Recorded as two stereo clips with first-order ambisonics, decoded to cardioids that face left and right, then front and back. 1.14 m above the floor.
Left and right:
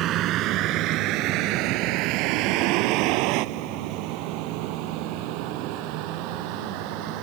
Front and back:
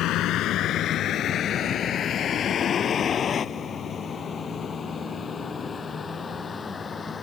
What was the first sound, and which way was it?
A vehicle, 45° right.